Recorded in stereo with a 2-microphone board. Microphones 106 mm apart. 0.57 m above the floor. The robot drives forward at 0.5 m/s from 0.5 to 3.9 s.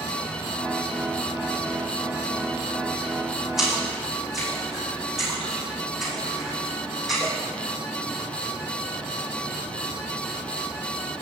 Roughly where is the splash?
Centre.